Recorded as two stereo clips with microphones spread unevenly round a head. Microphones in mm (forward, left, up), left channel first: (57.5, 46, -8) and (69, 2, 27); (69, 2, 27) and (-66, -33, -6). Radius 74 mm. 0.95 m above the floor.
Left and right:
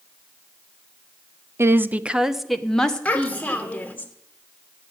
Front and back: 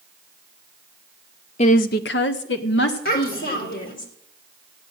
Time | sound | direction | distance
1.6 | a woman speaking | 30° right | 1.0 m
3.0 | a child speaking | 50° left | 3 m